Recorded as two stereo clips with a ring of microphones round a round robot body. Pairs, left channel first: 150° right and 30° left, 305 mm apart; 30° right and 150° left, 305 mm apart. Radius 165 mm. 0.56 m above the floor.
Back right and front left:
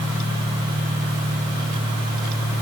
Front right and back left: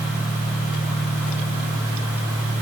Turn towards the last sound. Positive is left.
No sound to turn to.